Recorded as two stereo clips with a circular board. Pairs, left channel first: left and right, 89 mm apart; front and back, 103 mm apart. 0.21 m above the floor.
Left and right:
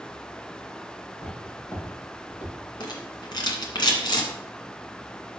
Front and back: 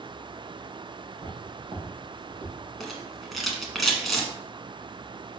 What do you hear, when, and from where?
1.1 s footsteps: 140° left, 4.5 m; by 2.5 s 135° left, 5 m
2.8 s a rattle: 90° left, 1.7 m